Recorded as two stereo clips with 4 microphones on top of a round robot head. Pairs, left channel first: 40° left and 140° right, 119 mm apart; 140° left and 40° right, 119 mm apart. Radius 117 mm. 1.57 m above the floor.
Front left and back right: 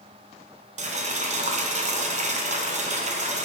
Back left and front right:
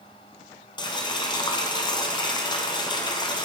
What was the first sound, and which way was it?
Boiling, 165° right.